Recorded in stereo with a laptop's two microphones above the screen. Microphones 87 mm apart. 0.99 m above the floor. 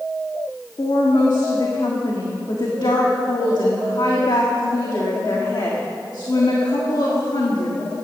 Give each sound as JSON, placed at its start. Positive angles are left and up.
{"t": 0.8, "sound": "a woman speaking", "side_deg": 60, "distance_m": 1.7}